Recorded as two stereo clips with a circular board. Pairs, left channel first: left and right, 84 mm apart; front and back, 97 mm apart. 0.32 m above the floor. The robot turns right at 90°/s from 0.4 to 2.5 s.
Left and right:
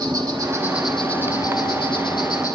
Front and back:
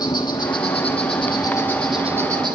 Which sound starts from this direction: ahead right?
An insect, at 0.0 s.